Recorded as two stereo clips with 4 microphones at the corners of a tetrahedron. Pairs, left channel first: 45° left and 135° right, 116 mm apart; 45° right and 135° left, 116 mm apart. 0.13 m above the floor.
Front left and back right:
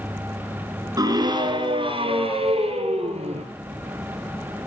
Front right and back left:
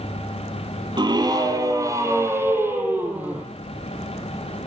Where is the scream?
175° left, 2.5 m; by 3.5 s 150° right, 4 m.